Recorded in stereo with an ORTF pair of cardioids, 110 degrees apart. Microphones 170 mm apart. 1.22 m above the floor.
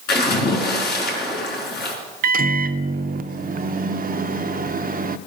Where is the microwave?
60° right, 0.5 m.